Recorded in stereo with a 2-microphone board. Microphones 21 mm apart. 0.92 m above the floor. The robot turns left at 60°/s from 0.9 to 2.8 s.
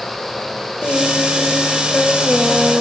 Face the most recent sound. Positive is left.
turn(degrees=-15)